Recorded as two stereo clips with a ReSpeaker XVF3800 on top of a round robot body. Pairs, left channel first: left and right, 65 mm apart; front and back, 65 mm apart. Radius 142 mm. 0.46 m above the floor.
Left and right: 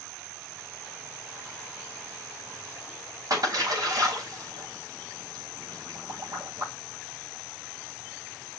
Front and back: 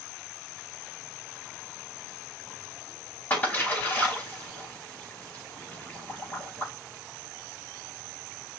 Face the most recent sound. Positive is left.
turn(degrees=-65)